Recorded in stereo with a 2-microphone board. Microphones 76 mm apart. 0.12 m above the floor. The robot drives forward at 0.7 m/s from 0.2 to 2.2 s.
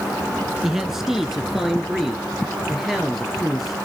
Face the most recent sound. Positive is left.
turn(degrees=-5)  # may be behind; listen again after turning